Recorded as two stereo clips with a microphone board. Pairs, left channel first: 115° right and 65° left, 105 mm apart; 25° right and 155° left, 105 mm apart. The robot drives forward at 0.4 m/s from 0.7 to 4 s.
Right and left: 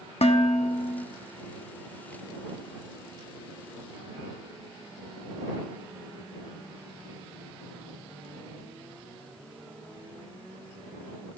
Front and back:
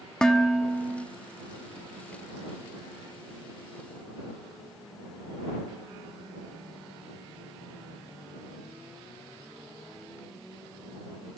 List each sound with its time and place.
0.2 s dishes clattering: 105° right, 0.5 m; by 1.1 s 120° right, 0.6 m